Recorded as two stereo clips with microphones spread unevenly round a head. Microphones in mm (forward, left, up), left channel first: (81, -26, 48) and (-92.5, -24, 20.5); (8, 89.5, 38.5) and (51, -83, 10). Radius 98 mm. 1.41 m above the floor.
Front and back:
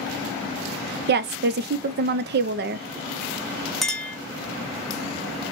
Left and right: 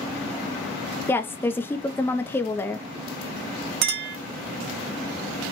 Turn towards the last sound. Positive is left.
turn(degrees=-75)